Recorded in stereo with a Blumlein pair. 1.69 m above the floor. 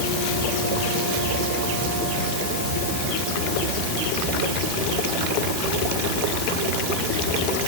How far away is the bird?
I don't hear a bird.